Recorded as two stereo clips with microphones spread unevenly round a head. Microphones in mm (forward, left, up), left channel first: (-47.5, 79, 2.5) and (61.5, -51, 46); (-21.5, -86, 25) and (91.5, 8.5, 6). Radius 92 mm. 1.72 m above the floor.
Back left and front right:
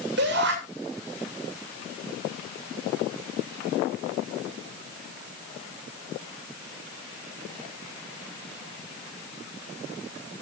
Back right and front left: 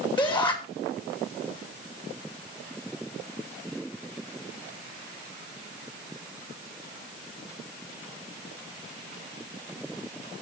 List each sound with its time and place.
0.2 s a shout: 85° right, 7 m